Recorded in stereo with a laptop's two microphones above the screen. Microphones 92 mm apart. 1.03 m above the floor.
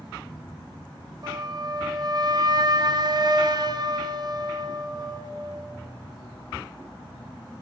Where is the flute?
45° right (ahead or behind), 0.6 m.